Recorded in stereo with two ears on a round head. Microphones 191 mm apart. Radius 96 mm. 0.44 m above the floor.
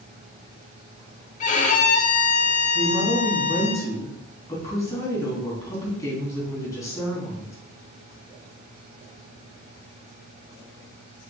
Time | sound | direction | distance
1.4 | a violin | 35° left (ahead or behind) | 0.9 m
2.8 | a woman speaking | 15° left (ahead or behind) | 3.5 m